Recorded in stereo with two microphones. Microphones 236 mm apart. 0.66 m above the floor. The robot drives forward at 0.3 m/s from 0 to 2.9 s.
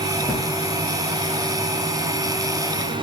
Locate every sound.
0.2 s a drawer: 20° right (ahead or behind), 4 m